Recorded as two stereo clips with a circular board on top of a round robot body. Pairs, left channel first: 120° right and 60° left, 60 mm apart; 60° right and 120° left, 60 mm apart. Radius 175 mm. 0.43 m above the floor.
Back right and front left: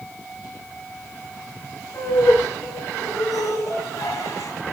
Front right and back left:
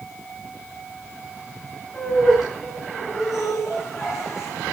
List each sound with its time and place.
1.9 s laughter: 155° right, 9.5 m; by 4.5 s 150° right, 6.5 m